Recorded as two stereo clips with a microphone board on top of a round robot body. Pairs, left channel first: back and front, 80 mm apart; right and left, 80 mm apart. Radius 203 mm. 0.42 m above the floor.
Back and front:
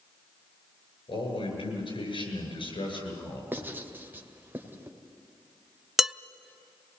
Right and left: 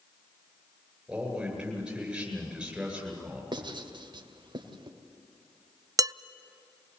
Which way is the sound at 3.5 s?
65° left.